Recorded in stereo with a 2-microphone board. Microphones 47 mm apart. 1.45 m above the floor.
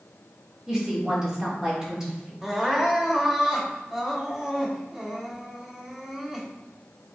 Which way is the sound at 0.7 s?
15° right (ahead or behind).